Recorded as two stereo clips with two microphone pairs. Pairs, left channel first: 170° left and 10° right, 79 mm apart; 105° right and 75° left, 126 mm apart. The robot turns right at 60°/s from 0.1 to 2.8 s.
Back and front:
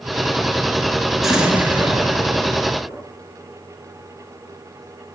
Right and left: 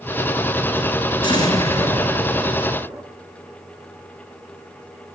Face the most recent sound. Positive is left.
turn(degrees=0)